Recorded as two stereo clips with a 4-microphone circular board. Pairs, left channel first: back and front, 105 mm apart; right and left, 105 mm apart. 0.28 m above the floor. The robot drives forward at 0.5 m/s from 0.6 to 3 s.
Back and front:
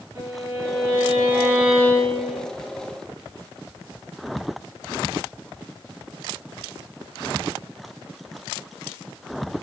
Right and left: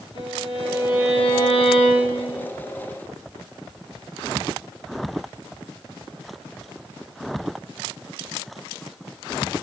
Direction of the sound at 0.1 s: 60° right.